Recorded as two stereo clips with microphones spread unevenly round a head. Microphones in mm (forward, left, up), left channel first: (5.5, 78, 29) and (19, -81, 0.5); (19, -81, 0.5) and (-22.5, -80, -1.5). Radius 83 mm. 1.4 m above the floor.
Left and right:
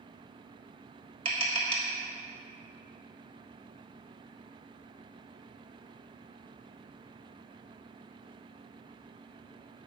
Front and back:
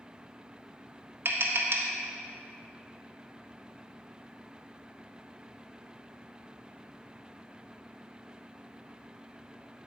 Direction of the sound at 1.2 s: 145° right.